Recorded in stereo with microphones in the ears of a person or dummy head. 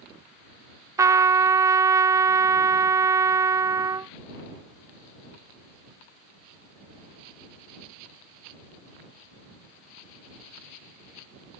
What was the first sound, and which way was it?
A trumpet, 10° right (ahead or behind).